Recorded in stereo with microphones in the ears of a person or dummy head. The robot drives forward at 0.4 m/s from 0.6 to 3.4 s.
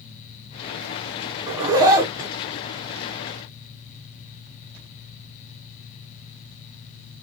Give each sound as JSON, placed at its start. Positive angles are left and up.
{"t": 1.5, "sound": "a zipper", "side_deg": -20, "distance_m": 0.9}